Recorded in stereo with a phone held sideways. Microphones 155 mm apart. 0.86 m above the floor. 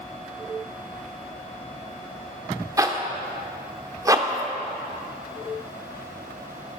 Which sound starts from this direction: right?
A zipper, at 2.8 s.